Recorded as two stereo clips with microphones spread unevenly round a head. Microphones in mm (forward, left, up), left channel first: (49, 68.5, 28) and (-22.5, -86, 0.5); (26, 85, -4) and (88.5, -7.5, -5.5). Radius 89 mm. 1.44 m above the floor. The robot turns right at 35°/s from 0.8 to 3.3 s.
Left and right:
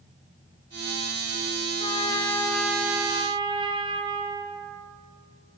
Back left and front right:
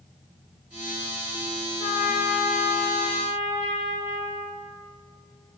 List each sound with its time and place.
1.8 s a trumpet: 125° left, 0.6 m; by 4.6 s 175° left, 0.6 m